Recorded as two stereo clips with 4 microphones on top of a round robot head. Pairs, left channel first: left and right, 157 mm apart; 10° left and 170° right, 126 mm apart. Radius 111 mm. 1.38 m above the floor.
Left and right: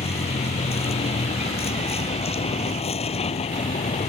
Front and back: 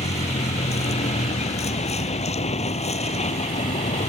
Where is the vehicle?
40° left.